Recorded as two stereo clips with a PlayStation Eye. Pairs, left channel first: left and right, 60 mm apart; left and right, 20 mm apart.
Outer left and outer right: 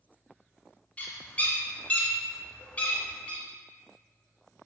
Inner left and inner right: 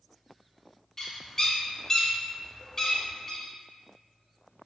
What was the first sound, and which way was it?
A bird, 25° left (ahead or behind).